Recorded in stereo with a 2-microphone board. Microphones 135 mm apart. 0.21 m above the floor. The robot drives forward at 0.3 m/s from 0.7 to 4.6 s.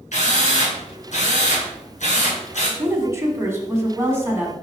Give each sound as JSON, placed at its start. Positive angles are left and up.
{"t": 0.1, "sound": "a drill", "side_deg": 60, "distance_m": 2.5}
{"t": 2.8, "sound": "a woman speaking", "side_deg": -20, "distance_m": 1.2}